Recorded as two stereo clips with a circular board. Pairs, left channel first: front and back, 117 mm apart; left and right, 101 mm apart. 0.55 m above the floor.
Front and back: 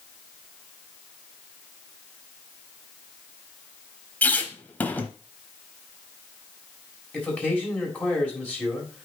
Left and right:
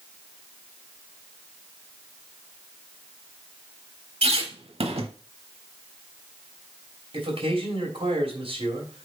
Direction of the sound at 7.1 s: 75° right.